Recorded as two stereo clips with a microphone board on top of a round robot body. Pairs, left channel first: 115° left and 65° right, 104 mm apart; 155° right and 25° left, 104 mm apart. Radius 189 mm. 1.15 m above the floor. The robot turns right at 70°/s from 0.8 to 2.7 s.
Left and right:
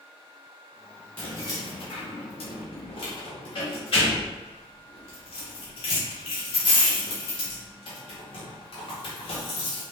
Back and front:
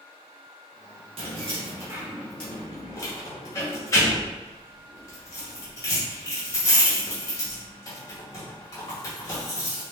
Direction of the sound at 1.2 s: 35° left.